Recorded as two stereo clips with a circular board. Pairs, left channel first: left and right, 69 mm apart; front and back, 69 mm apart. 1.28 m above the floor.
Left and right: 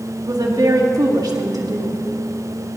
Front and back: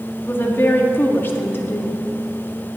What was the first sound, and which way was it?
A woman speaking, 60° right.